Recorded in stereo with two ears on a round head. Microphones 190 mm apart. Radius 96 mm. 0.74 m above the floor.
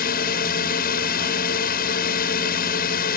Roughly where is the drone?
Left.